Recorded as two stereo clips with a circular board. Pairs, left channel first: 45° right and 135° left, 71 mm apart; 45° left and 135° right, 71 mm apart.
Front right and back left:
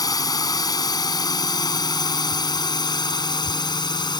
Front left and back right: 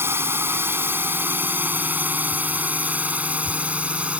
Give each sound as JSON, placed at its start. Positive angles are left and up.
{"t": 0.0, "sound": "a drone", "azimuth_deg": -75}